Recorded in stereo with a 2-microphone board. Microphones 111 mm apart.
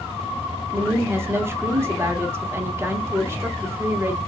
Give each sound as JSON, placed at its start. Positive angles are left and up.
{"t": 0.7, "sound": "a woman speaking", "side_deg": -20, "distance_m": 0.7}